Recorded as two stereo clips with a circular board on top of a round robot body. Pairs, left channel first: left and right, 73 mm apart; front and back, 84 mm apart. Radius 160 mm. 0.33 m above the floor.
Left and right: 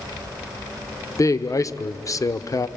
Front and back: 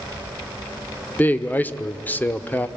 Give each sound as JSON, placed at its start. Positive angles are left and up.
{"t": 1.2, "sound": "a man speaking", "azimuth_deg": 65, "distance_m": 1.2}